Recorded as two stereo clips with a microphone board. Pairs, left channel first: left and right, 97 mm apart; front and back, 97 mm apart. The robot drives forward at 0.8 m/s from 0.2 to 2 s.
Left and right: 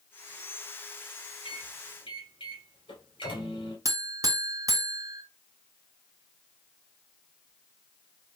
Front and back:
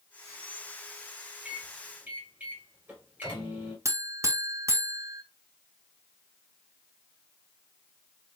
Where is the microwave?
100° left, 2.5 m; by 3.8 s 110° left, 2.5 m.